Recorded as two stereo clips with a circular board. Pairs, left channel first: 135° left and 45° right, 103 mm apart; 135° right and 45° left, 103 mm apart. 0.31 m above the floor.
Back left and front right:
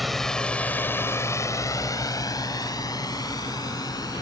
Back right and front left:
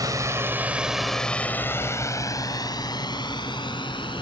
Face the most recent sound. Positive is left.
turn(degrees=-170)